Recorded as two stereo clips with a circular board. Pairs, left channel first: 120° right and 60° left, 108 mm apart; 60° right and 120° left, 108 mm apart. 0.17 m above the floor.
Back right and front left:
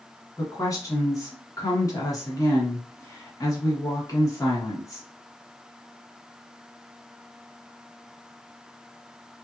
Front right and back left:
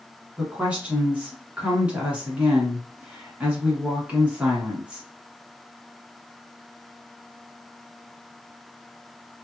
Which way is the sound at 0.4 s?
165° right.